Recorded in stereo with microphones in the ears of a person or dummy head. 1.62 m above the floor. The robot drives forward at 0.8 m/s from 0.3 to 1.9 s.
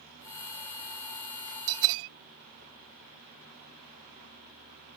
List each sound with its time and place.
1.7 s a bell: 70° right (ahead or behind); by 2.1 s 65° right (ahead or behind)